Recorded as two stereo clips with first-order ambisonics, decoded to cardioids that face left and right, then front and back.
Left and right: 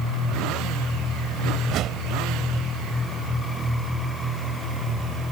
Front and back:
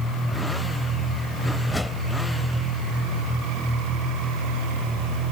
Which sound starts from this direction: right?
A whoosh, at 1.6 s.